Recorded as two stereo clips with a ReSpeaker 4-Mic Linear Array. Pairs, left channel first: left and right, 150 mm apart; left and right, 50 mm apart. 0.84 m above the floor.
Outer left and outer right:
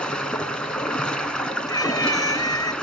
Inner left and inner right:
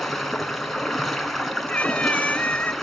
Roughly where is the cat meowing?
Left.